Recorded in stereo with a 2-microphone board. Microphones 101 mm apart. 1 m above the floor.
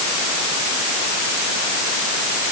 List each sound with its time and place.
Only background noise.